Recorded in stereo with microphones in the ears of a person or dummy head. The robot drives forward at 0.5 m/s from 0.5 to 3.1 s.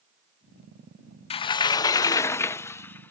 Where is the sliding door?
30° left (ahead or behind); by 3.1 s 10° left (ahead or behind).